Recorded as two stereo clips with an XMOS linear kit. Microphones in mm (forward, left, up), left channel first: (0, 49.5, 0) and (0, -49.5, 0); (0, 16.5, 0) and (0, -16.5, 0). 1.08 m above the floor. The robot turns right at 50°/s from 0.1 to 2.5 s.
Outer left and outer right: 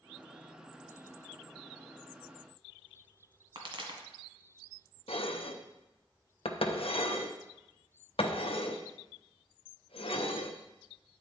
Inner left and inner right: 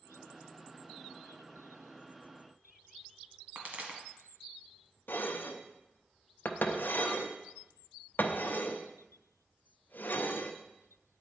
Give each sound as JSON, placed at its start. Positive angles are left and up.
{"t": 3.5, "sound": "a pop", "side_deg": -55, "distance_m": 1.6}
{"t": 5.1, "sound": "dishes clattering", "side_deg": 70, "distance_m": 0.6}